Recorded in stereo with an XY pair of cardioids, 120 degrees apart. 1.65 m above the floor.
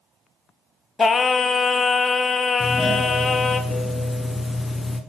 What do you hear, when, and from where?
1.0 s singing: 35° left, 0.7 m
2.6 s a doorbell: 30° left, 0.9 m